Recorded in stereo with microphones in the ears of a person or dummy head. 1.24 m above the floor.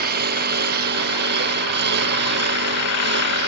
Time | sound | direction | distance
0.0 | a lawn mower | 45° right (ahead or behind) | ?